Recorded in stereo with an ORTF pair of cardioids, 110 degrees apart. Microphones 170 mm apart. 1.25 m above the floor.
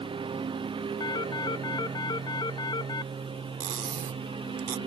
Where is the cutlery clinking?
55° right.